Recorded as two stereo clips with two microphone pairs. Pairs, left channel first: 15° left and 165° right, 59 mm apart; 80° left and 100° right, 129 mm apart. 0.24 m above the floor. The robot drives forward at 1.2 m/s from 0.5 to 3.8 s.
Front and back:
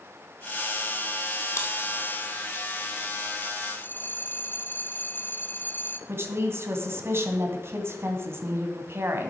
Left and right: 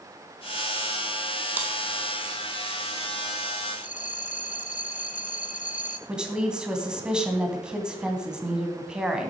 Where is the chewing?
20° right, 1.9 m; by 1.7 s 25° right, 1.8 m.